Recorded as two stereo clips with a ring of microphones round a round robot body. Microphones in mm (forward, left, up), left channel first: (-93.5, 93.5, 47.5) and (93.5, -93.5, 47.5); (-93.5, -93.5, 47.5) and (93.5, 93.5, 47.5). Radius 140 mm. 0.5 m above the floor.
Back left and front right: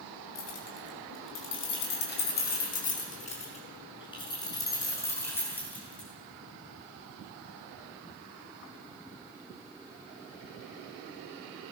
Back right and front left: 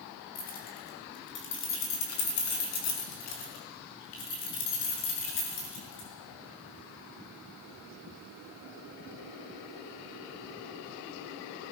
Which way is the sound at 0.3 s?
165° left.